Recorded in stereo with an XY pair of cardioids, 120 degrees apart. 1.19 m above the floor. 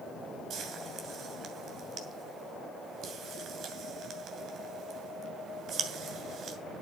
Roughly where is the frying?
Ahead right.